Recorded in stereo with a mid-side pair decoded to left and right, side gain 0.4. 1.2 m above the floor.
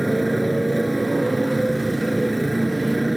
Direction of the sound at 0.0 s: 10° right.